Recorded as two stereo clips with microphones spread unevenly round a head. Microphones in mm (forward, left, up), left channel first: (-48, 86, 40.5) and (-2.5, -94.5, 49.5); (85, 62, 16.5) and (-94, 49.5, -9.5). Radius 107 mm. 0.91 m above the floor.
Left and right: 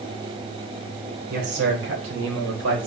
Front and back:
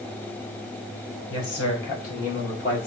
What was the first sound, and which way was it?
A man speaking, 35° right.